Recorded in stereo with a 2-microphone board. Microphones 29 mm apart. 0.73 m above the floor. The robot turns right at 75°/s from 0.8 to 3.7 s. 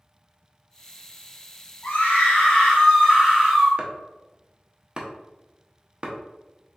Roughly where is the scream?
Left.